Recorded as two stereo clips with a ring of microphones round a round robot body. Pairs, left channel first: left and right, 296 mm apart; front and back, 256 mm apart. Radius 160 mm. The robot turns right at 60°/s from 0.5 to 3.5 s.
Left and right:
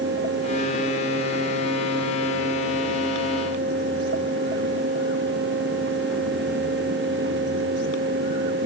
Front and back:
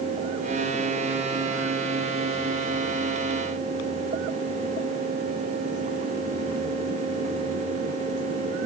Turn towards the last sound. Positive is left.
No sound to turn to.